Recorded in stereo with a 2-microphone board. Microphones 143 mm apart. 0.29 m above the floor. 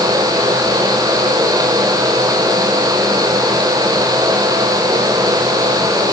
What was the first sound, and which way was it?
Only background noise.